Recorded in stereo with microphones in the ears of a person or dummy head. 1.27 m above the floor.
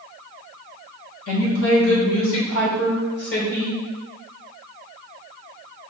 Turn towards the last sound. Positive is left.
turn(degrees=35)  # may be behind; listen again after turning